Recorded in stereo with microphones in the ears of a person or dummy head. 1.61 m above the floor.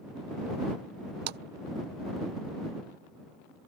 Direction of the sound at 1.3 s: 50° right (ahead or behind).